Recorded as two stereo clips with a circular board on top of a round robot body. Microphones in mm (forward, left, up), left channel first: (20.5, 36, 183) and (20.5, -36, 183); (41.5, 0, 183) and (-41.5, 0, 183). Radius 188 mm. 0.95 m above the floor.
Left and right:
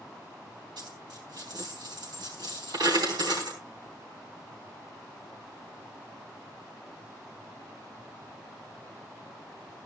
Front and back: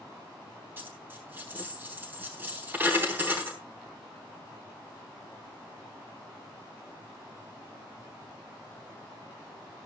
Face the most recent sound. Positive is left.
turn(degrees=-115)